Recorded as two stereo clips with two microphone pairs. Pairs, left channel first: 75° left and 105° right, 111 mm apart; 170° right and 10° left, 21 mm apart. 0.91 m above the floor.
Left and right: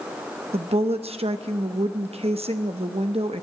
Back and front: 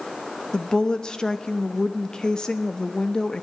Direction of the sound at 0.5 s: 120° right.